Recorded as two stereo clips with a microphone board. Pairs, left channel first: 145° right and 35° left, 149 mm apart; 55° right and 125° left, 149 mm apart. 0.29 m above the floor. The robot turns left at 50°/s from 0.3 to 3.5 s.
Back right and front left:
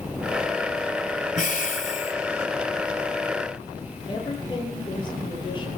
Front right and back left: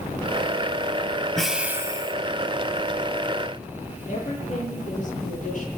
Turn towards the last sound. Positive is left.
turn(degrees=-90)